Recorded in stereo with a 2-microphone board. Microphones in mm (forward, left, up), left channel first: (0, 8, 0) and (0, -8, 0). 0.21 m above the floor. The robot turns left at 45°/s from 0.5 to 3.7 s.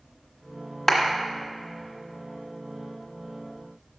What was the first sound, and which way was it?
A clap, 20° left (ahead or behind).